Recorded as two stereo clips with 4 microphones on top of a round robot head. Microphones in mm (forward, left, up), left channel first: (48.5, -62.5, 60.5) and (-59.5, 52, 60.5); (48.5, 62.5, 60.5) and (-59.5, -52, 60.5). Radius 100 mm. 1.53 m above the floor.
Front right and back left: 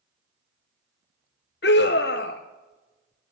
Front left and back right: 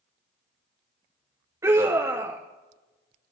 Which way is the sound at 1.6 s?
60° right.